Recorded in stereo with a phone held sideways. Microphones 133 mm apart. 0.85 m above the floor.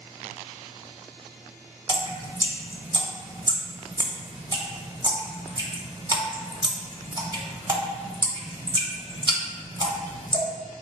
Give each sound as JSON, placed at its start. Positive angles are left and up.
{"t": 1.9, "sound": "dripping", "side_deg": -35, "distance_m": 0.7}